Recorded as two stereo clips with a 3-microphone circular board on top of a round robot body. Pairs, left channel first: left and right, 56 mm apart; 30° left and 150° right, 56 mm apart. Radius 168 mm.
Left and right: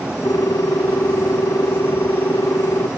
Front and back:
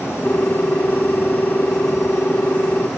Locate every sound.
0.2 s a ringtone: 90° left